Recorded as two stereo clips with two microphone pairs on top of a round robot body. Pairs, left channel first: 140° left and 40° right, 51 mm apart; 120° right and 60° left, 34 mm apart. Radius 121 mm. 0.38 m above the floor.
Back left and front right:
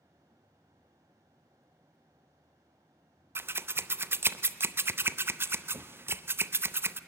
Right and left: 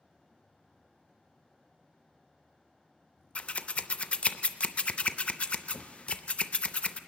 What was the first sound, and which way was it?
Scissors, 65° right.